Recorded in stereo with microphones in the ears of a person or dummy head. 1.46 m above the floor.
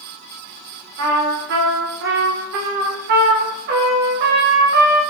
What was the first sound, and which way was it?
A trumpet, 55° right (ahead or behind).